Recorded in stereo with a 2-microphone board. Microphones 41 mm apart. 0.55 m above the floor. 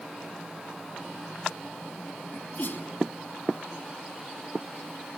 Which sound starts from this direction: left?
A sneeze, at 2.3 s.